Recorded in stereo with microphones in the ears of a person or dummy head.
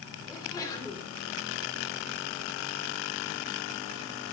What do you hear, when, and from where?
0.3 s a sneeze: 20° left (ahead or behind), 4.5 m